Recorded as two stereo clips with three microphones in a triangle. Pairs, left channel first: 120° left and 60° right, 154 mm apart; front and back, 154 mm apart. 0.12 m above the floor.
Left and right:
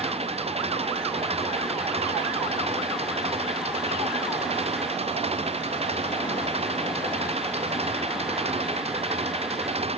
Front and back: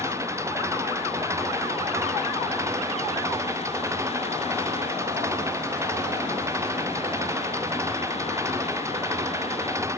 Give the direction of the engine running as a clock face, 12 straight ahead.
4 o'clock.